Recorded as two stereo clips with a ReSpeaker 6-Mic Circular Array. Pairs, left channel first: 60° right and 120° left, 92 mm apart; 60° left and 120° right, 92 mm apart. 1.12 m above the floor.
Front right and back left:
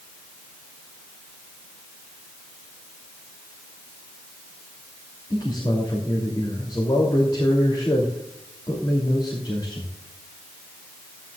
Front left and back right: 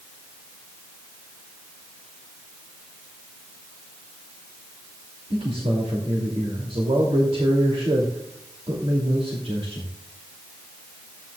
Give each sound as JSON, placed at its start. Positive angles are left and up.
{"t": 5.3, "sound": "a man speaking", "azimuth_deg": -100, "distance_m": 2.5}